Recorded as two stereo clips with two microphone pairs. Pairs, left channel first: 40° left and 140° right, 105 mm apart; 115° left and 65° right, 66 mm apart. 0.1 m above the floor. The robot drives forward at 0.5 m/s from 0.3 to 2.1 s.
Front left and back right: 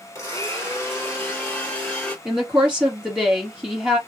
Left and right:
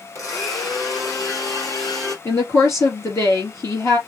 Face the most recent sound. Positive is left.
turn(degrees=145)